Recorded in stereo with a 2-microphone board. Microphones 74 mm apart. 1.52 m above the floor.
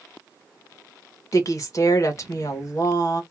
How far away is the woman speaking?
About 1.3 m.